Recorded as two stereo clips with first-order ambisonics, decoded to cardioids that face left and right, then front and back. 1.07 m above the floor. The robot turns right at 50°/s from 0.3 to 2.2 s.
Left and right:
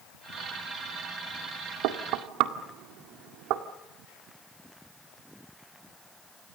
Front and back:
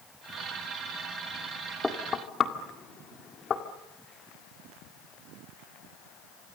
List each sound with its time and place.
1.8 s knocking: 80° right, 2.0 m; by 3.6 s 60° right, 2.0 m